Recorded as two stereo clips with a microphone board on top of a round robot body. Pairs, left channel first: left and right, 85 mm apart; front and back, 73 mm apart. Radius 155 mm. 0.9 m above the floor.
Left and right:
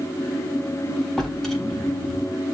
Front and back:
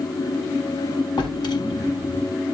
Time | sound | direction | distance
1.2 | a drawer | 5° left | 3 m